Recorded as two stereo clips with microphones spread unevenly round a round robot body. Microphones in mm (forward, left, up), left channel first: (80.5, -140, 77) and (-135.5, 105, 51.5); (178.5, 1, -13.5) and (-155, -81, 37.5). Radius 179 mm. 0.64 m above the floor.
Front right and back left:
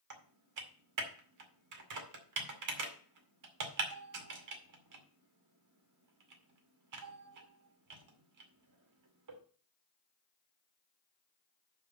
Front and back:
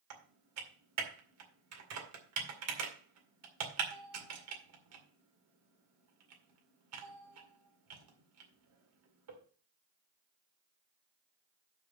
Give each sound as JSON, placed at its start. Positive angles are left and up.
{"t": 0.1, "sound": "typing on a keyboard", "azimuth_deg": 145, "distance_m": 2.0}